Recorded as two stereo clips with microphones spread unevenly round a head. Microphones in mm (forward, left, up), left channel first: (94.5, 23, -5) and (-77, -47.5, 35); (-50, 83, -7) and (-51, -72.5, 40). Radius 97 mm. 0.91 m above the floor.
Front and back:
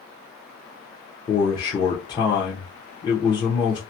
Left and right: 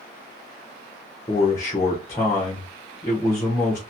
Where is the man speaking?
60° left, 0.7 m.